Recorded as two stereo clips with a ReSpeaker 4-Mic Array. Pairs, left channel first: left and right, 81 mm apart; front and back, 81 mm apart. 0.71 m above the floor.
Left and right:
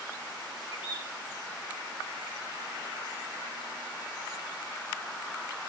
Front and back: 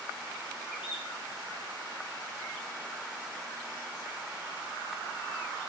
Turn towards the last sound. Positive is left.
turn(degrees=105)